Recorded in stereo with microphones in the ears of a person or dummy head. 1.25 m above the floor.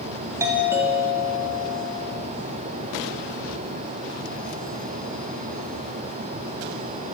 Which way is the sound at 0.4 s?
20° right (ahead or behind).